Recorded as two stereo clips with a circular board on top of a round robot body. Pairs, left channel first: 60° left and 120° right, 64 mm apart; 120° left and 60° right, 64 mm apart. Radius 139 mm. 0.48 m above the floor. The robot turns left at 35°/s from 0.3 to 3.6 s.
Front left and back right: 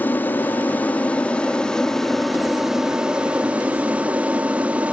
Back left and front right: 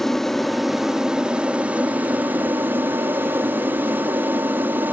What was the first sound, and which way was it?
An aircraft, 40° left.